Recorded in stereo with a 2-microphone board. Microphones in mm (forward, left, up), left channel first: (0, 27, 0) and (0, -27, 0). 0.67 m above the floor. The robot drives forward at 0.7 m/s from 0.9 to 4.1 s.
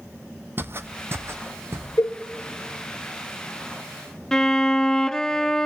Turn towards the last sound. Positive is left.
turn(degrees=10)  # may be behind; listen again after turning